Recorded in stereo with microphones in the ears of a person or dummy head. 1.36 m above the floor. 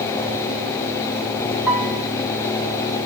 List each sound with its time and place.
1.7 s a piano: 5° right (ahead or behind), 3.5 m